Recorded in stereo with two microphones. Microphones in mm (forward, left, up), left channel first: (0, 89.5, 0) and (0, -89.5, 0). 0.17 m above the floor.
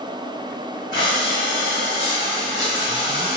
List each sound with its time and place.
0.9 s breathing: 45° right (ahead or behind), 1.4 m